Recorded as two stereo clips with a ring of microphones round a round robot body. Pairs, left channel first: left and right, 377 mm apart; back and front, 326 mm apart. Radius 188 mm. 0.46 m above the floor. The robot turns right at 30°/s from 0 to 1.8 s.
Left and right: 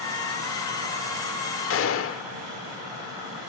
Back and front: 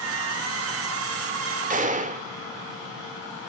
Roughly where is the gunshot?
Ahead left.